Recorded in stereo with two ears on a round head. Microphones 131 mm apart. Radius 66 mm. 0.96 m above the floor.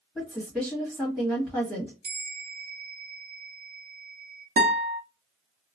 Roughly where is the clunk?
I don't hear a clunk.